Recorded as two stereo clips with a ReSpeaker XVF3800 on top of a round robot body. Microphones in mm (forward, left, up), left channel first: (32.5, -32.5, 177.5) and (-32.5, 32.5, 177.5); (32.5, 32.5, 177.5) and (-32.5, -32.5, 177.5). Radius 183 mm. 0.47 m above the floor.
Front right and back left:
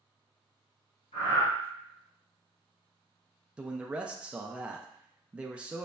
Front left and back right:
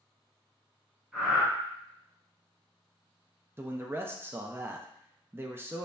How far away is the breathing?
About 1.6 m.